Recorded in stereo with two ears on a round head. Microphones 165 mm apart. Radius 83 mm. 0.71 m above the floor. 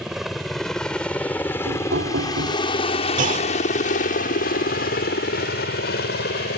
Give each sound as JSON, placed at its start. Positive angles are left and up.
{"t": 0.0, "sound": "a helicopter", "side_deg": 0}
{"t": 1.7, "sound": "knocking", "side_deg": -70}
{"t": 3.2, "sound": "a clunk", "side_deg": -45}